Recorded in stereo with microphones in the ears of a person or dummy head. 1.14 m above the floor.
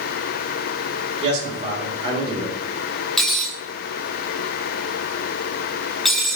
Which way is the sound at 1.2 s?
35° right (ahead or behind).